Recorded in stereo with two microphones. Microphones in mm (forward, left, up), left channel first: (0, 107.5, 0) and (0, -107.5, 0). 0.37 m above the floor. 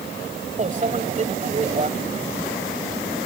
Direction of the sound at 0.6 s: 35° right (ahead or behind).